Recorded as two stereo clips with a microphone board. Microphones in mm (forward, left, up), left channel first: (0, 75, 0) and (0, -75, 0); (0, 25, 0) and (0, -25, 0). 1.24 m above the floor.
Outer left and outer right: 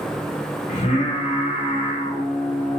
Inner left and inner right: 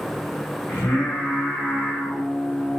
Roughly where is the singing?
Left.